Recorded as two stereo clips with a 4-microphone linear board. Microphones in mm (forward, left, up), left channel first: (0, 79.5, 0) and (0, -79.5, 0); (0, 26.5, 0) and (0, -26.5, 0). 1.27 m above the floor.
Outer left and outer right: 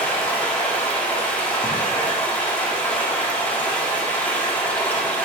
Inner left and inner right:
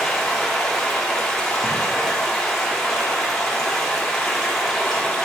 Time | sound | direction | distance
0.0 | running water | 10° left (ahead or behind) | 0.8 m